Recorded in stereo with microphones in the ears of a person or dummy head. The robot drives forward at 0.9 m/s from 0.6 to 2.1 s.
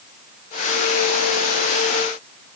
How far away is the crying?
No crying in this recording.